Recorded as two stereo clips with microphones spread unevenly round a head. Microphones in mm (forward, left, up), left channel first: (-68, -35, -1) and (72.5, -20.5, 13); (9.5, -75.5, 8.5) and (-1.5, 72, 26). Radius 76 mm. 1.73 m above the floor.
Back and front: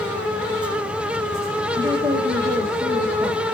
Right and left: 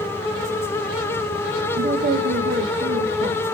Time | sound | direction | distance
1.8 | a woman speaking | 75° left | 2 m